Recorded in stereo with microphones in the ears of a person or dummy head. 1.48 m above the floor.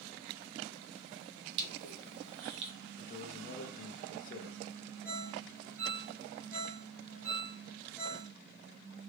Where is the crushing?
60° right (ahead or behind), 0.9 m.